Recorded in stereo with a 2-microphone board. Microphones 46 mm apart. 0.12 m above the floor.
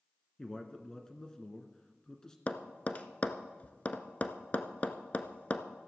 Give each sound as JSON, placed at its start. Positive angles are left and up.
{"t": 0.4, "sound": "a man speaking", "side_deg": 15, "distance_m": 1.1}
{"t": 2.5, "sound": "tapping", "side_deg": 35, "distance_m": 0.8}